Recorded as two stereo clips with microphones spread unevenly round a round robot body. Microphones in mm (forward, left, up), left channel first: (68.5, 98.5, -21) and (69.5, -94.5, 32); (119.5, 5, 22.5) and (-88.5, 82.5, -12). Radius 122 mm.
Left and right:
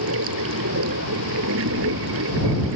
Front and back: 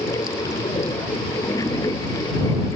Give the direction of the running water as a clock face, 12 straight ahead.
3 o'clock.